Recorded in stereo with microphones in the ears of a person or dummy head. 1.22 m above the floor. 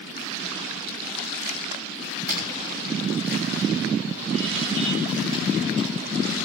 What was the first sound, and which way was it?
Footsteps, 50° right (ahead or behind).